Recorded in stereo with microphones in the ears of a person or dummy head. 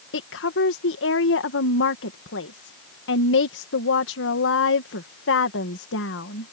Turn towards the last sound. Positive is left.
turn(degrees=65)  # may be behind; listen again after turning